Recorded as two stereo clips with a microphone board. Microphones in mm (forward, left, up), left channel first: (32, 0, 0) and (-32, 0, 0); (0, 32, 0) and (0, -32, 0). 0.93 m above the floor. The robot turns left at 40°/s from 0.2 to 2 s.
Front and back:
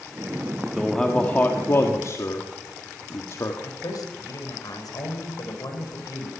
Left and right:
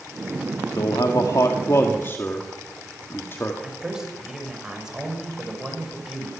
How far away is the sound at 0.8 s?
About 1.7 m.